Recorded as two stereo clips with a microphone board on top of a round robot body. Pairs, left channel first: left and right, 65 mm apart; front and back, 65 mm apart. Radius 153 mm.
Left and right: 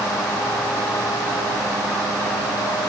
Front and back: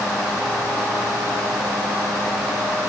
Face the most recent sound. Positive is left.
No sound to turn to.